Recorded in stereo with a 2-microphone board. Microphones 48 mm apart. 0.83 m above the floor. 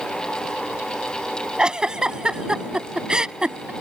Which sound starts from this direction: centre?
A giggle, at 1.6 s.